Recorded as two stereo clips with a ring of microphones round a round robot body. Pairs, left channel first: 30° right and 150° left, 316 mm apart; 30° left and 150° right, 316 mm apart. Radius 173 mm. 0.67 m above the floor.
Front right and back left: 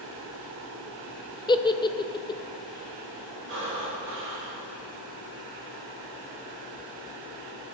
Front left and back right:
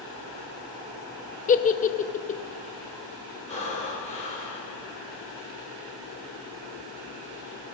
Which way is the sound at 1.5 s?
25° left.